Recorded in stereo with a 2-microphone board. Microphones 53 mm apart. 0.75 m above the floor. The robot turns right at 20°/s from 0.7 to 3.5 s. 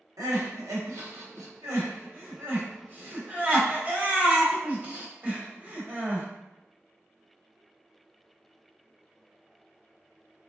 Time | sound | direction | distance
0.2 | crying | 80° right | 1.0 m